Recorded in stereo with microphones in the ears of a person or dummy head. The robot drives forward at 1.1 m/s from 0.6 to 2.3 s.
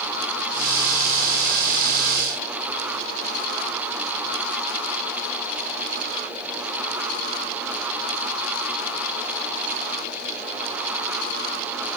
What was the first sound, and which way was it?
Only background noise.